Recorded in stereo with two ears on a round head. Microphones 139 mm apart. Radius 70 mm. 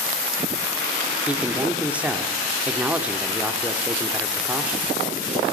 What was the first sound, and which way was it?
A man speaking, 10° right (ahead or behind).